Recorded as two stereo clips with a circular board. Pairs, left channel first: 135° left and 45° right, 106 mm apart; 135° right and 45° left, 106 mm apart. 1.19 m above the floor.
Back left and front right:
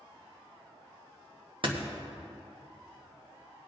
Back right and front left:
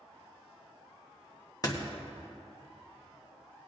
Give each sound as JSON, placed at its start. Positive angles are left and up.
{"t": 1.6, "sound": "a door slam", "azimuth_deg": -80, "distance_m": 1.2}